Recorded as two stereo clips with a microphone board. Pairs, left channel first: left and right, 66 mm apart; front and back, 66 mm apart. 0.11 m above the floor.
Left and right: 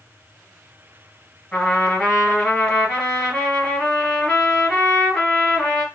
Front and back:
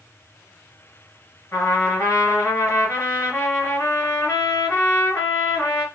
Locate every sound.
1.5 s a trumpet: 15° left, 2 m